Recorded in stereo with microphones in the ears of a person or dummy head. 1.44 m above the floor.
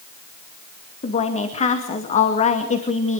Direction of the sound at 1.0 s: 30° left (ahead or behind).